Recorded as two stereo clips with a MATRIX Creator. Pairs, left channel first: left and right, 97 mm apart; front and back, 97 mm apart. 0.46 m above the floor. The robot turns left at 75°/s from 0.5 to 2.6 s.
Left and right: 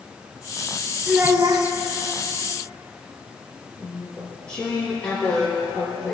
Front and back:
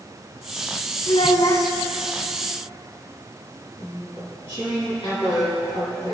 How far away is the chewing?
About 4.5 m.